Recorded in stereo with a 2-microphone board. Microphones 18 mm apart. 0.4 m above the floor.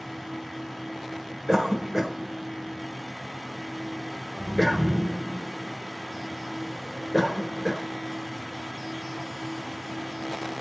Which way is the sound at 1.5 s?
35° right (ahead or behind).